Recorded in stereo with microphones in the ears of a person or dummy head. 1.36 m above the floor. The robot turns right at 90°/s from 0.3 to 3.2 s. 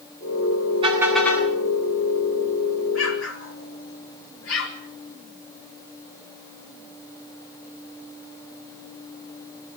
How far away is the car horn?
About 8 m.